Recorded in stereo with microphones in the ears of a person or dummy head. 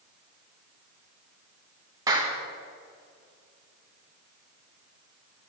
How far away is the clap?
About 1.8 m.